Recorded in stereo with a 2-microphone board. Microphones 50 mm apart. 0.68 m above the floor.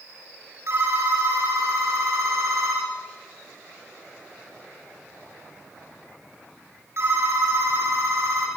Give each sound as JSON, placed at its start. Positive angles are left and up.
{"t": 0.7, "sound": "a phone ringing", "side_deg": -55, "distance_m": 7.0}